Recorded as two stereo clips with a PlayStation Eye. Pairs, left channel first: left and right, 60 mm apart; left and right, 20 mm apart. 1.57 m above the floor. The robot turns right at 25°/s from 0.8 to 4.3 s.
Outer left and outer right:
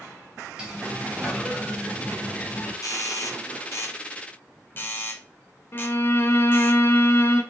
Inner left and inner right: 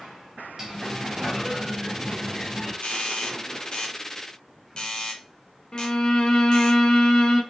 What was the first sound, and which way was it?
A sliding door, 20° right.